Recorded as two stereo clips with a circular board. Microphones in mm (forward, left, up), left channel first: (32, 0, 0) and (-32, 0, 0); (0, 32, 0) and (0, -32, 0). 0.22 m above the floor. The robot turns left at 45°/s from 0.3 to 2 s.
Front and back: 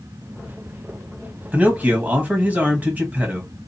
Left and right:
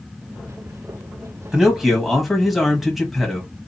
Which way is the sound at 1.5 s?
155° right.